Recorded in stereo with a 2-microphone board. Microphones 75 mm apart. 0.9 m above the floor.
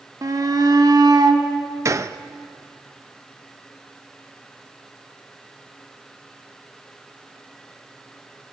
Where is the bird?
I don't hear a bird.